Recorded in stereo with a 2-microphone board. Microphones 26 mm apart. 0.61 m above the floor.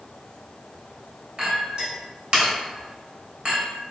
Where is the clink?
40° right (ahead or behind), 1.1 m.